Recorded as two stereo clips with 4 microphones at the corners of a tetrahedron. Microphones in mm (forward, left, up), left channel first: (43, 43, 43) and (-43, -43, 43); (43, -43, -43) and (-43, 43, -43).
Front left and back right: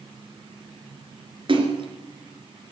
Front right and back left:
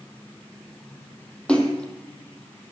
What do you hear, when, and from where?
1.5 s a splash: 125° right, 2.5 m